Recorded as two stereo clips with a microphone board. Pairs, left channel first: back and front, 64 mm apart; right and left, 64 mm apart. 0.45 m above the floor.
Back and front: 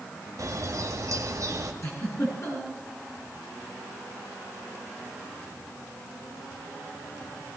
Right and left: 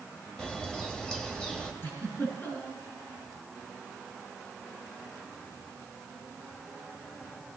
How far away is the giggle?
About 6.5 m.